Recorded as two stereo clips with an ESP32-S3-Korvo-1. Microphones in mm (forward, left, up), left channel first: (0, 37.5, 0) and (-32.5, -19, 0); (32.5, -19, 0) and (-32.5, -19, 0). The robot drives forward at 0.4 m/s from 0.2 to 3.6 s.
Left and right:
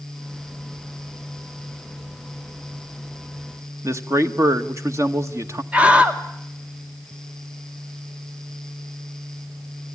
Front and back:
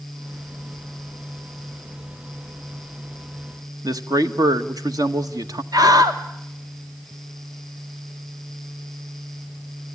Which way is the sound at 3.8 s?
165° right.